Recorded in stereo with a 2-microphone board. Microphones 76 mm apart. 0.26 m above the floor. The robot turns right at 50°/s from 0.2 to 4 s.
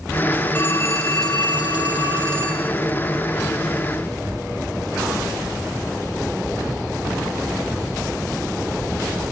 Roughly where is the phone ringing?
Ahead.